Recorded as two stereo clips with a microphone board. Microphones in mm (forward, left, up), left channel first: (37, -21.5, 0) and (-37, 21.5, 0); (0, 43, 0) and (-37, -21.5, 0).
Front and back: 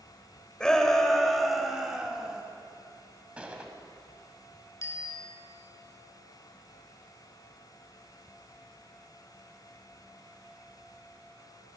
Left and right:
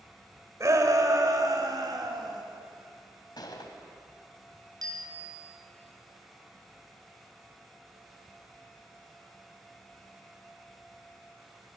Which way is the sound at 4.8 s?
85° right.